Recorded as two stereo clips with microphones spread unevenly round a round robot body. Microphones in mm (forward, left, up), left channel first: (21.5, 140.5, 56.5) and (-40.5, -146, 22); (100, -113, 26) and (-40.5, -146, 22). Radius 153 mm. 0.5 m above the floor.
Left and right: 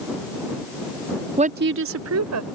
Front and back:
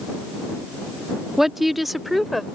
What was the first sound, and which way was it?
A woman speaking, 85° right.